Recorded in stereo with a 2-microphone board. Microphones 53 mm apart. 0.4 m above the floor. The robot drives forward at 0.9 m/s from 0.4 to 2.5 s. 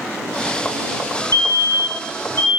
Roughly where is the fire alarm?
Left.